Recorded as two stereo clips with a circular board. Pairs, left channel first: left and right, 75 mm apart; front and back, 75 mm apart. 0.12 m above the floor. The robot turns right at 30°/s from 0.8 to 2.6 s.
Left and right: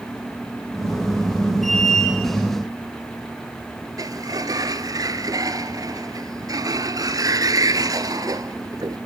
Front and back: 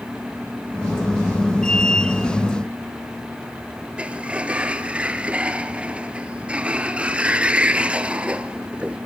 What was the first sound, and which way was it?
A sliding door, 110° right.